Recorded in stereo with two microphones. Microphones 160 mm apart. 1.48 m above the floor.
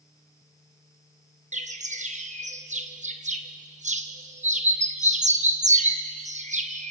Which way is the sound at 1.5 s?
50° right (ahead or behind).